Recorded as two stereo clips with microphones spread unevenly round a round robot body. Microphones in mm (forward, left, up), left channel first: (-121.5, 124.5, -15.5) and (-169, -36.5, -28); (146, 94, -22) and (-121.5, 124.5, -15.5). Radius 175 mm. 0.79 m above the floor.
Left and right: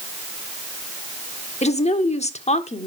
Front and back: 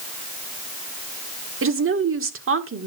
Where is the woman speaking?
130° left, 1.8 m.